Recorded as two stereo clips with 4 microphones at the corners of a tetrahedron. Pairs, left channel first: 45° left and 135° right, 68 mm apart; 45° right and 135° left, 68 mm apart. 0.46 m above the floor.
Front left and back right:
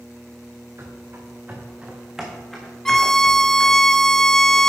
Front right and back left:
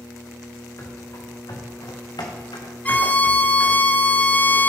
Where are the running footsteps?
85° right, 3.5 m; by 3.8 s 15° right, 3.5 m.